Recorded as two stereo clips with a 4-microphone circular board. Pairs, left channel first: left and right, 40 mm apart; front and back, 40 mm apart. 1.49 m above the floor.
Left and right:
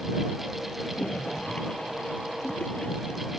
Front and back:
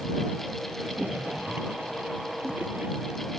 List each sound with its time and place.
0.8 s a splash: 150° left